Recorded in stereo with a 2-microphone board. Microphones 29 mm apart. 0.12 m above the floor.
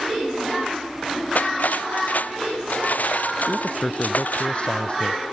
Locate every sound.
1.4 s cutlery clinking: 60° left (ahead or behind)
3.5 s a man speaking: 40° left (ahead or behind)